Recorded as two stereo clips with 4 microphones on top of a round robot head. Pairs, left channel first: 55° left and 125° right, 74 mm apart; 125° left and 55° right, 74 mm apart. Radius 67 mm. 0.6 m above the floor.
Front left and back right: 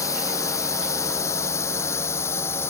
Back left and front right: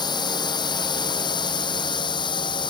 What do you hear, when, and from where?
0.0 s a drone: 100° left; by 2.7 s 110° left